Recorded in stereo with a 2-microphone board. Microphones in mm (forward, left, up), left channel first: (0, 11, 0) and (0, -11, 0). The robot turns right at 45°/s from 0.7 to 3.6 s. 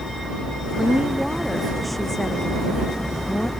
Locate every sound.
0.8 s a woman speaking: 50° right; by 3.5 s 75° left